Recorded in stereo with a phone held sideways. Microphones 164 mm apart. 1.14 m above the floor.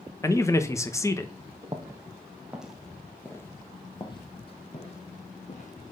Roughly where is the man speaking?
Centre.